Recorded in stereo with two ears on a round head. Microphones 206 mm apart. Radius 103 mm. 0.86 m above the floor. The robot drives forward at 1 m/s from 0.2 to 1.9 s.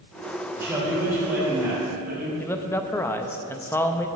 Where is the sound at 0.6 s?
10° right (ahead or behind), 3.5 m; by 2.3 s 5° right (ahead or behind), 4.5 m.